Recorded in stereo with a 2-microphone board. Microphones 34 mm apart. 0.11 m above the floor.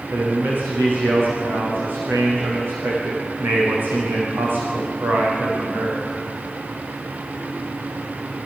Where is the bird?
I don't hear a bird.